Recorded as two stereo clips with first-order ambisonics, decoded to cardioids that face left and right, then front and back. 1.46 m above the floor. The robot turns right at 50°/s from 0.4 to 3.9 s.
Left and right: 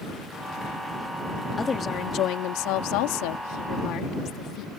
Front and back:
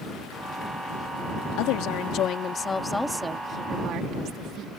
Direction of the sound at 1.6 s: 15° left.